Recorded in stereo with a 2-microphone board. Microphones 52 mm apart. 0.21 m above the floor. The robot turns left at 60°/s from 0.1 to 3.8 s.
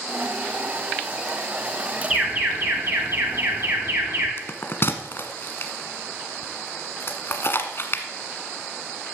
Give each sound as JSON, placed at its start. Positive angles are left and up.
{"t": 2.1, "sound": "an alarm", "azimuth_deg": -15, "distance_m": 4.0}
{"t": 4.4, "sound": "a bell", "side_deg": 50, "distance_m": 1.2}